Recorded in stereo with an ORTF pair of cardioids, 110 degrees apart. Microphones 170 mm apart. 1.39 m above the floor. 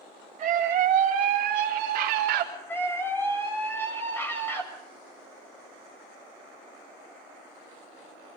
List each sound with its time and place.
0.4 s a scream: 50° right, 4 m; by 2.5 s 65° right, 4 m
2.7 s a scream: 15° left, 7 m